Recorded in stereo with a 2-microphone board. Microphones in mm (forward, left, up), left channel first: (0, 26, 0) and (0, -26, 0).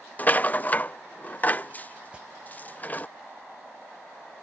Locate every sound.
0.2 s a rattle: 30° left (ahead or behind)
2.1 s an alarm: 20° right (ahead or behind)